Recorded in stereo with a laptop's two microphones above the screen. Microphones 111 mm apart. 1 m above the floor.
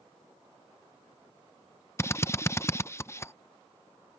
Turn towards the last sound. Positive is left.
turn(degrees=25)  # may be behind; listen again after turning